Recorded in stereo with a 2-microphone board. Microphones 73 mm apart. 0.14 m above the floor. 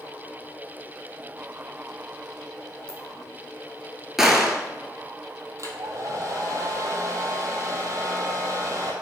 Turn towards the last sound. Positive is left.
turn(degrees=-50)  # may be behind; listen again after turning